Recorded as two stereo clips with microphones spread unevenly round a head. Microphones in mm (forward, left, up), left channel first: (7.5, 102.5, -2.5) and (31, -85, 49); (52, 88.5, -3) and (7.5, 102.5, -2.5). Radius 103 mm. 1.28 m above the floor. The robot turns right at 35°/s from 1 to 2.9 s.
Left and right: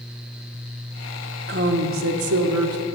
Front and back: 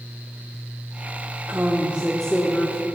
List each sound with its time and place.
1.5 s a woman speaking: 130° right, 1.1 m; by 2.8 s 85° right, 1.1 m